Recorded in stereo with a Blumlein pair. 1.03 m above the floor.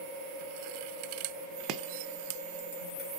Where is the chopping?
40° right, 0.8 m.